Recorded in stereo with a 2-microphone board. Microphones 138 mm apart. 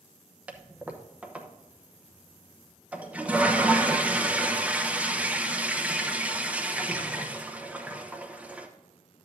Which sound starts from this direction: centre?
A toilet flushing, at 0.5 s.